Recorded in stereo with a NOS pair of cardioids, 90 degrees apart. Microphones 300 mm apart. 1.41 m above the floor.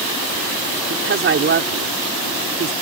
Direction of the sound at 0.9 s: 40° right.